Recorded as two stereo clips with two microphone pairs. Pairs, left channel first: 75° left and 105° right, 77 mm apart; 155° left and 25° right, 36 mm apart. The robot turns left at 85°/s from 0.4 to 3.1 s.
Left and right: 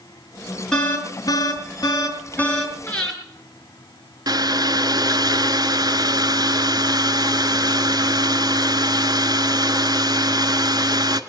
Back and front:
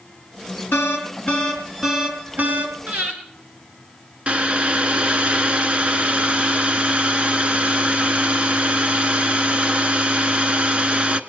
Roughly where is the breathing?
Ahead.